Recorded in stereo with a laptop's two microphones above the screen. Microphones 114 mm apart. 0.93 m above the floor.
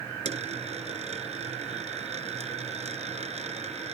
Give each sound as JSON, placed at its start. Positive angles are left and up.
{"t": 0.2, "sound": "a dropped coin", "side_deg": -75}